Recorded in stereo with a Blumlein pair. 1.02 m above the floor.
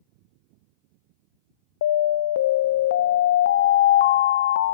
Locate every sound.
1.8 s an alarm: 60° left, 0.6 m